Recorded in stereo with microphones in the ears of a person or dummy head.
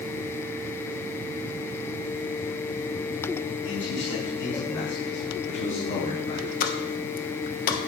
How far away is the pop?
About 1.2 m.